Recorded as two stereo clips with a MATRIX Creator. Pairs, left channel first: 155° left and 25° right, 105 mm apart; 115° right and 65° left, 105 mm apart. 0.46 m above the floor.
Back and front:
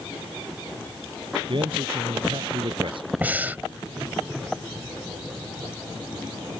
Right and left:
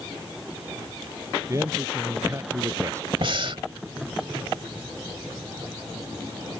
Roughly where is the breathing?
Ahead left.